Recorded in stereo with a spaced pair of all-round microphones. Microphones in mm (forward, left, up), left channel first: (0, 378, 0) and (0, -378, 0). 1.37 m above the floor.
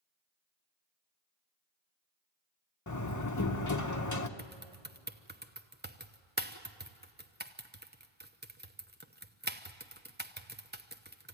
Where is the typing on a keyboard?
15° right (ahead or behind), 0.8 m.